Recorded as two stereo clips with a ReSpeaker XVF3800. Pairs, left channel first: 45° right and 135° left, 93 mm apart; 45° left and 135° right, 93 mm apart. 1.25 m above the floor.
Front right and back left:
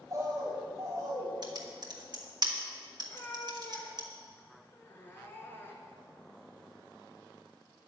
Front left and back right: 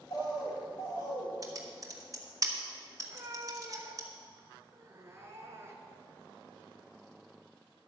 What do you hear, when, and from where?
0.1 s a bird: 80° left, 3 m
1.4 s typing on a keyboard: 175° left, 1.4 m
3.0 s a cat meowing: 95° right, 1.5 m